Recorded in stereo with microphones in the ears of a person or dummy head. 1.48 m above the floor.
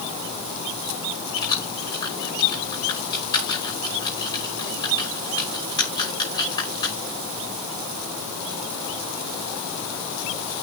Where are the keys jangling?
25° left (ahead or behind), 5.5 m.